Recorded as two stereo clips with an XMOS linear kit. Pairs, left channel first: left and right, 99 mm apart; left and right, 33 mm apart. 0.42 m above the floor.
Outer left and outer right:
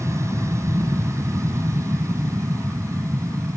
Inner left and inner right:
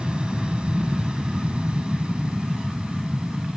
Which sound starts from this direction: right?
An aircraft, at 0.0 s.